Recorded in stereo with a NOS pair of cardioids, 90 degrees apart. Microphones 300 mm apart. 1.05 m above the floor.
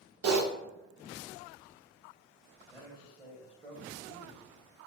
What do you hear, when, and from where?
0.2 s typing on a keyboard: 55° right, 0.9 m
2.7 s a man speaking: straight ahead, 1.8 m